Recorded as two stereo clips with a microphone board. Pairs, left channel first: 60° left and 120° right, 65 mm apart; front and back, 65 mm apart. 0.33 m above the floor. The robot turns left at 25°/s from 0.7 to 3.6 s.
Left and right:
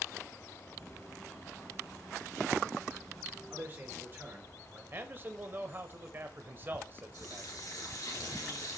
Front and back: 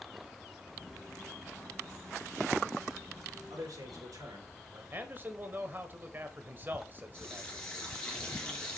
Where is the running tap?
75° left, 3 m.